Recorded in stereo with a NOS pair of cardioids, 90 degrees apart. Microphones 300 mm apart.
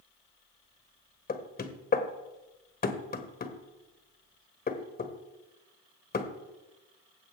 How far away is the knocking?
About 1.2 m.